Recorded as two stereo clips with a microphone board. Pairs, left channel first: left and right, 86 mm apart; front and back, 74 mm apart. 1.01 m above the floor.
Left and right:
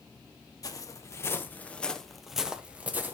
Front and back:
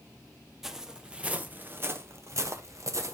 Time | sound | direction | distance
0.6 | footsteps | 95° left | 1.4 m